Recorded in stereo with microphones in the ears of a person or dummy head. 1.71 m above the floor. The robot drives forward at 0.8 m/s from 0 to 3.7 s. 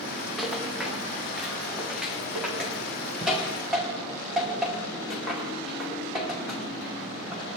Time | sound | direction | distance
0.4 | a rattle | 5° left (ahead or behind) | 2.5 m